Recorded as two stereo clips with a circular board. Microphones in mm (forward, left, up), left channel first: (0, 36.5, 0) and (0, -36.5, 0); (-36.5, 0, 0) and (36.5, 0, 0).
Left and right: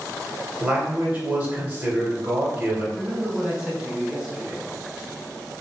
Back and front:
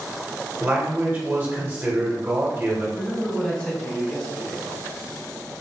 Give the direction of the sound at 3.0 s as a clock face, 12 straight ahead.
5 o'clock.